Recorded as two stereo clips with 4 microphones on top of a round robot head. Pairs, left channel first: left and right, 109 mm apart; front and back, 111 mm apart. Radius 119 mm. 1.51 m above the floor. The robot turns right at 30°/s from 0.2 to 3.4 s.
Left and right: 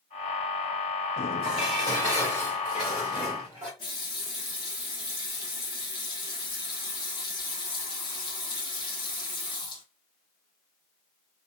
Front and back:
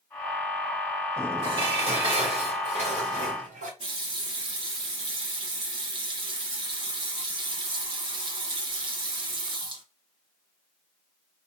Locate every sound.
1.4 s dishes clattering: 135° left, 2.0 m; by 3.7 s 165° right, 2.0 m
3.8 s a running tap: 150° left, 0.7 m